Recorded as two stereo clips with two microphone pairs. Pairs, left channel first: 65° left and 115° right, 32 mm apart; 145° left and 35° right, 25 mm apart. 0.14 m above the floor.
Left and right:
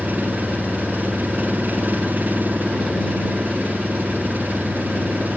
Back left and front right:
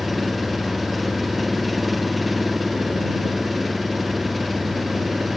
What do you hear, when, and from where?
0.0 s an engine running: 125° right